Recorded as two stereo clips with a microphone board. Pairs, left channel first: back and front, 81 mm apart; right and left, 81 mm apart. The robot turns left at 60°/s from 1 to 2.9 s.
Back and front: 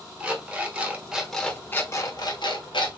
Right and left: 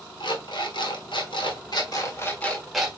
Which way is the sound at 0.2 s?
75° right.